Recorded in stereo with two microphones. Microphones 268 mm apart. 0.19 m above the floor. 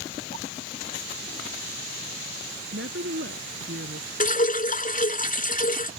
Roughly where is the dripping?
Left.